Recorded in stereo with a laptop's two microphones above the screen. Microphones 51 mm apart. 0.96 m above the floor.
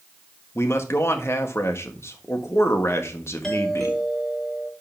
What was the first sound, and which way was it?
A man speaking, 60° left (ahead or behind).